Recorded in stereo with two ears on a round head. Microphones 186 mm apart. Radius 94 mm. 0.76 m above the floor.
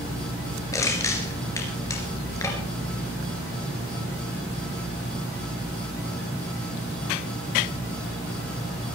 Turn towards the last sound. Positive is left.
turn(degrees=15)  # may be behind; listen again after turning